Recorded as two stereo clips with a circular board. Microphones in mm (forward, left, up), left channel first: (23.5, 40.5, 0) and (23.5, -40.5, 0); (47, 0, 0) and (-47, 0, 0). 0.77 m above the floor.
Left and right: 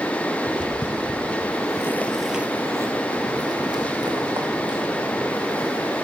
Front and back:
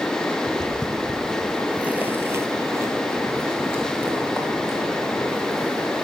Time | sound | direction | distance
0.5 | footsteps | 85° left | 2 m